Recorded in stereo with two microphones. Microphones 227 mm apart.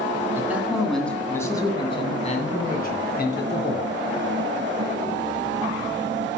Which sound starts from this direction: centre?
A man speaking, at 0.3 s.